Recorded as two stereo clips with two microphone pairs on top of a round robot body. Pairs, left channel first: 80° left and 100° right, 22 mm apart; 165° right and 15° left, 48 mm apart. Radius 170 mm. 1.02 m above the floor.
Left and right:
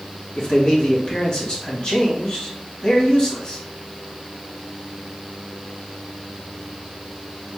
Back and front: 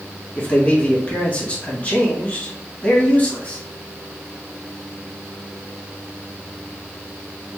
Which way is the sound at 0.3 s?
135° left.